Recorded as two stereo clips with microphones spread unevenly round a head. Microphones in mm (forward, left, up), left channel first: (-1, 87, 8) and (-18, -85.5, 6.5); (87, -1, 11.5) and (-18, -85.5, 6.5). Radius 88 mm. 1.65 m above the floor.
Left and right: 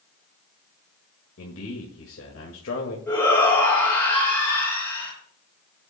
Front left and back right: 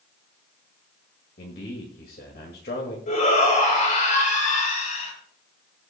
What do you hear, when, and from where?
1.4 s a man speaking: 70° left, 2.0 m
3.1 s a shout: 5° left, 6.5 m